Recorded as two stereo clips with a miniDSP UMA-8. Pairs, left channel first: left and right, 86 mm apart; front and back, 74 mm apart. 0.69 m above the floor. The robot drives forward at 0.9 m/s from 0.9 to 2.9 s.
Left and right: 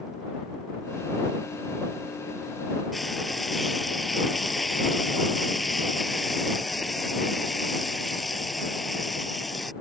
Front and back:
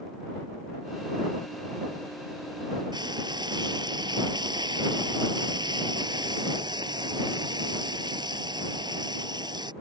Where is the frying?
Straight behind.